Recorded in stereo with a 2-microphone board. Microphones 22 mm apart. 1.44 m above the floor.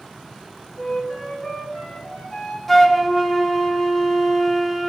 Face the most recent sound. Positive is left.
turn(degrees=0)  # may be behind; listen again after turning